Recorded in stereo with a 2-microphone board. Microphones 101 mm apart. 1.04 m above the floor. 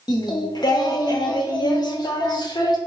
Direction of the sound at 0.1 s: 45° left (ahead or behind).